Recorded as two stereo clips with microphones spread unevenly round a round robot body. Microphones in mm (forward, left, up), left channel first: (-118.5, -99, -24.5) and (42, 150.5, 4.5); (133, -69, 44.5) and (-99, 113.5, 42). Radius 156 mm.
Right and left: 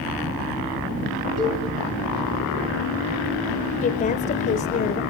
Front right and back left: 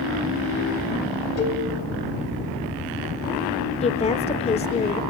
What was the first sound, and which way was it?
A cowbell, 10° right.